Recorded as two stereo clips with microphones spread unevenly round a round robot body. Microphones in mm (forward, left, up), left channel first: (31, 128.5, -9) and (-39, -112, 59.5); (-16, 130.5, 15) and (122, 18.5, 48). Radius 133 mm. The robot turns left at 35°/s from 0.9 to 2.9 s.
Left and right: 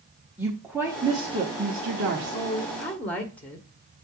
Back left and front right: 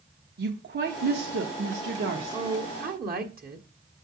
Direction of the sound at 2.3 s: 15° left.